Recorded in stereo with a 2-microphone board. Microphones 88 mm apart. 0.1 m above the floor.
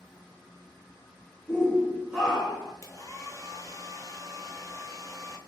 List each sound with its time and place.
1.5 s a shout: 10° left (ahead or behind), 1.2 m; by 2.7 s 20° right (ahead or behind), 1.3 m
2.8 s a hair dryer: 40° left (ahead or behind), 0.5 m